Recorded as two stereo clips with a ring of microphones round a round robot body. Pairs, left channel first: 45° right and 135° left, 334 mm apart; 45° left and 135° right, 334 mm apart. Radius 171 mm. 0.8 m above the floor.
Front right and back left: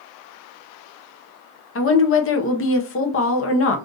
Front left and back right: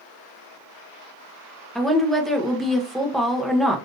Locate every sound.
1.8 s a woman speaking: 45° right, 0.8 m